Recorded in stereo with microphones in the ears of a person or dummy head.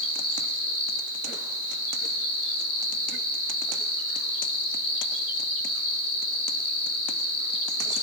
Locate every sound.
0.0 s an insect: 80° left, 8.5 m